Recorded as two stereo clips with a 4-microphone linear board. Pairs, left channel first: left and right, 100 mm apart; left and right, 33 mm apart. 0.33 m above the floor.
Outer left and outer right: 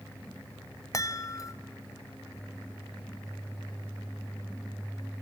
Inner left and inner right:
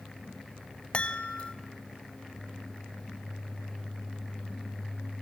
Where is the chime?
35° left (ahead or behind), 0.7 m.